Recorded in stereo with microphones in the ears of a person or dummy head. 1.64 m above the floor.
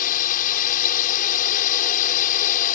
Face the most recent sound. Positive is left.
turn(degrees=45)  # may be behind; listen again after turning